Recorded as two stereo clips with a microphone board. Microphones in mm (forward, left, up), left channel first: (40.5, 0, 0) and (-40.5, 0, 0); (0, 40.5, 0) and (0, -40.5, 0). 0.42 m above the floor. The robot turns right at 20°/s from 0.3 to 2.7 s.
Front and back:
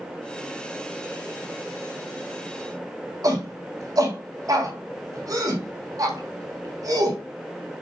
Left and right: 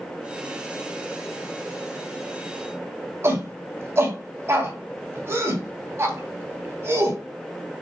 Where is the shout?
145° right, 3 m.